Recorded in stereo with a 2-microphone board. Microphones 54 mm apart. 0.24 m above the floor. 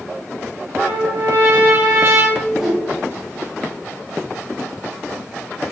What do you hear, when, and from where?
0.8 s a trumpet: 45° right (ahead or behind), 3 m
2.4 s a whoosh: 5° right (ahead or behind), 1.9 m